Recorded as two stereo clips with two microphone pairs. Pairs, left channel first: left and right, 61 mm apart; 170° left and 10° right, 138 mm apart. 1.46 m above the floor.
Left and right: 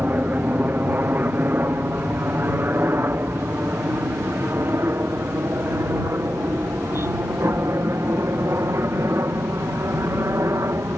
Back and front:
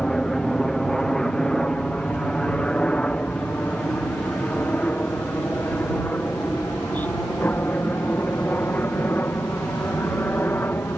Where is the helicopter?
105° right; by 11.0 s 120° right.